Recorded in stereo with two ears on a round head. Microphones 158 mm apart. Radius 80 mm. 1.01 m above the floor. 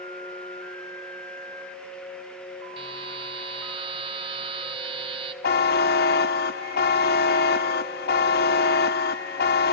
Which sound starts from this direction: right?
A buzzer, at 2.8 s.